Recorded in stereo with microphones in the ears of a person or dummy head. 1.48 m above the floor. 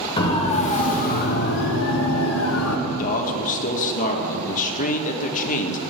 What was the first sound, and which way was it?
A siren, 25° left (ahead or behind).